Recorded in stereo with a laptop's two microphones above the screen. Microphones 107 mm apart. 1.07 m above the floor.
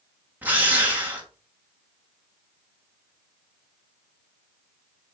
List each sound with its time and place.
0.4 s a drill: 15° right (ahead or behind), 1.4 m